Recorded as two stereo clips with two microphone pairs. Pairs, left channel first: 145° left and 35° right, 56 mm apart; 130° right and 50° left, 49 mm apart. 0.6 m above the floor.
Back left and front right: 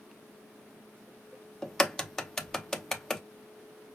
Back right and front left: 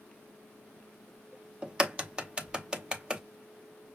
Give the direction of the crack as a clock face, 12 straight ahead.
10 o'clock.